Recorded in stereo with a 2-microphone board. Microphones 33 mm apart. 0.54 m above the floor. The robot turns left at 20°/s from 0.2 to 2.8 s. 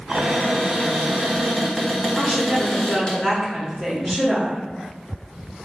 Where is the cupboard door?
150° right, 1.0 m; by 3.1 s 160° left, 1.0 m.